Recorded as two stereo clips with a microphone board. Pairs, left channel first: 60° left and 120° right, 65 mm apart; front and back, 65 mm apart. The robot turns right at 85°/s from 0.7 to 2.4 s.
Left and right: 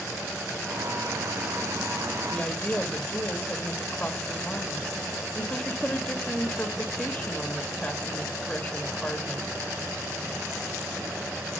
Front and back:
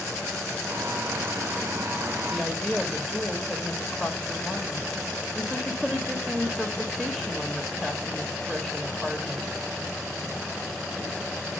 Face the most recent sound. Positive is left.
turn(degrees=115)